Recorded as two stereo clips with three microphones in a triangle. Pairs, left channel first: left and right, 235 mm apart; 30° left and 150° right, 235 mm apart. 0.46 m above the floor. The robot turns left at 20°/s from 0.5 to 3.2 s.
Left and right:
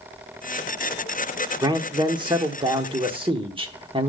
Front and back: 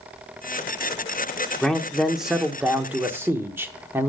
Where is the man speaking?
55° right, 0.9 m; by 4.1 s 85° right, 0.9 m.